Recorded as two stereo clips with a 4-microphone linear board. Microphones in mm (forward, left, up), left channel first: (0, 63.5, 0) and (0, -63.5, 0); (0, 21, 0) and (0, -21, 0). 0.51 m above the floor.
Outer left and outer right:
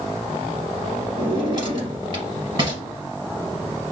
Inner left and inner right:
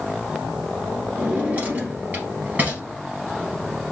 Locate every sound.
1.2 s a drawer: 40° right (ahead or behind), 2.5 m